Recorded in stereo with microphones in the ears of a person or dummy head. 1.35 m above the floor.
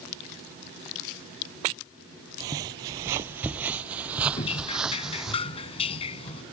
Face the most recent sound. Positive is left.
turn(degrees=35)  # may be behind; listen again after turning